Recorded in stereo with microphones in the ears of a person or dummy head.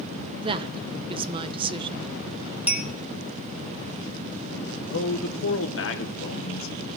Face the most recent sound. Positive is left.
turn(degrees=65)  # may be behind; listen again after turning